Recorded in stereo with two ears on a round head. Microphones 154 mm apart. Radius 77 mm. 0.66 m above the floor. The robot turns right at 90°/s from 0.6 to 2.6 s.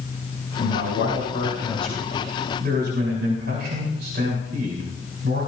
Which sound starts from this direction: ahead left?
A man speaking, at 0.6 s.